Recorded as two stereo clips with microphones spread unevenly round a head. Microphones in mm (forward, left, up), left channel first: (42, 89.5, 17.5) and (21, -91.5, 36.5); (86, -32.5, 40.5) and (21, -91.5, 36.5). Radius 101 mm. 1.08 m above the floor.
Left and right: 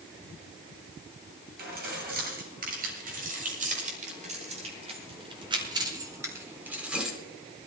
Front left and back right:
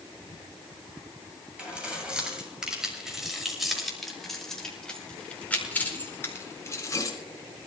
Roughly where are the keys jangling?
Ahead right.